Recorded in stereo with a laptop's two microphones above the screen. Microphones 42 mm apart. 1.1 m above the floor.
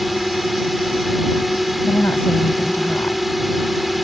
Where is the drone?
5° right (ahead or behind).